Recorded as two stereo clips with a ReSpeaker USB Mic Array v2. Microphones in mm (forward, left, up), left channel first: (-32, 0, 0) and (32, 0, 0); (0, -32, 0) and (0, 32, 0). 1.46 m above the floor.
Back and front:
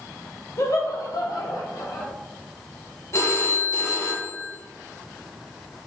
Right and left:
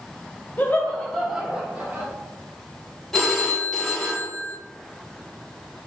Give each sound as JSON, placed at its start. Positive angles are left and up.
{"t": 0.6, "sound": "laughter", "azimuth_deg": -150, "distance_m": 0.7}
{"t": 3.1, "sound": "a phone ringing", "azimuth_deg": -175, "distance_m": 0.6}